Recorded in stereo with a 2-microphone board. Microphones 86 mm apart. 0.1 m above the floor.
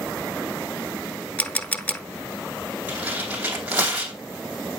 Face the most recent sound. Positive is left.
turn(degrees=-15)  # may be behind; listen again after turning